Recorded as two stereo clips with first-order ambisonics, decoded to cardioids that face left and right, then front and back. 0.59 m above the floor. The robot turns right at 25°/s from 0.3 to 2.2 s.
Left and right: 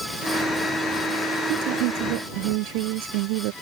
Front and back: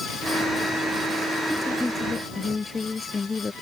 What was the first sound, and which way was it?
A woman speaking, 95° right.